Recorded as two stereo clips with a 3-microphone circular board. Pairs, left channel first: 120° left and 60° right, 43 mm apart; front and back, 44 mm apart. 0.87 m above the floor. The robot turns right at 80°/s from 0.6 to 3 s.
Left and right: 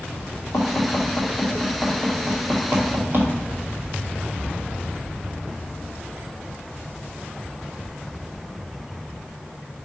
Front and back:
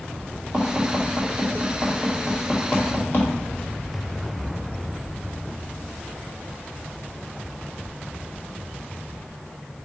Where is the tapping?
135° left, 2 m; by 3.3 s 35° right, 2 m.